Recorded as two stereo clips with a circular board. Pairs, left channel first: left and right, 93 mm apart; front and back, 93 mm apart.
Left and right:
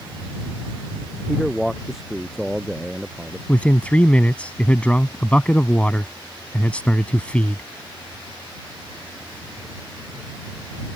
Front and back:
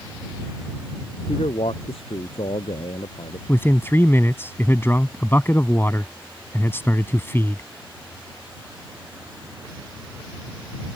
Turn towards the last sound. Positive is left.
turn(degrees=30)